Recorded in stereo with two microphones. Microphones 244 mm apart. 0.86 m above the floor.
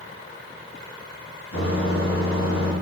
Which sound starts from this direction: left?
A microwave, at 1.5 s.